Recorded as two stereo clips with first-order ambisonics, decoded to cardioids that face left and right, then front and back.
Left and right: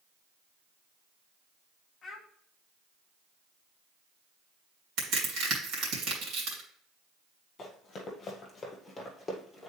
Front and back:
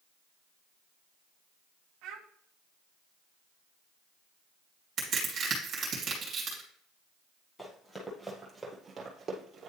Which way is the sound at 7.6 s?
70° left.